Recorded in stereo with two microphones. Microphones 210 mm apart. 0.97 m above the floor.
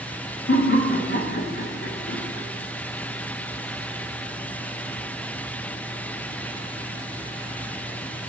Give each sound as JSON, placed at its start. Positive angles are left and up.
{"t": 0.5, "sound": "laughter", "side_deg": 70, "distance_m": 1.4}